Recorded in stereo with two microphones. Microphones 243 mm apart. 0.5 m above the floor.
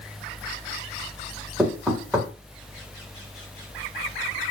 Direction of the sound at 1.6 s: Centre (ahead or behind).